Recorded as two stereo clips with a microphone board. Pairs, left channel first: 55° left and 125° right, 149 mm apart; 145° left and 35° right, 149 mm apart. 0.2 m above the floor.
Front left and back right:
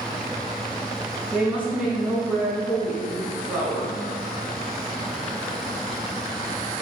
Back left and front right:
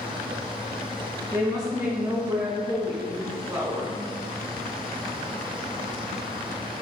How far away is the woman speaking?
About 1.0 m.